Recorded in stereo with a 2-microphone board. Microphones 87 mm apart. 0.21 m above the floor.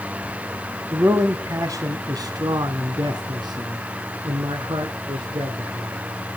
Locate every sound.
0.9 s a man speaking: 35° right (ahead or behind), 1.7 m; by 6.0 s 65° right (ahead or behind), 4 m